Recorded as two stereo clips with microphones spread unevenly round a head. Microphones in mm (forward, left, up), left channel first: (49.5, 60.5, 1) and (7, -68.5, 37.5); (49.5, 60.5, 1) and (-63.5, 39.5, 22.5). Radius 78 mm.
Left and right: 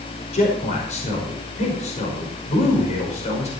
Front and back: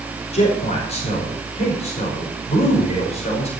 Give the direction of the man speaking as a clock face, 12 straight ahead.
11 o'clock.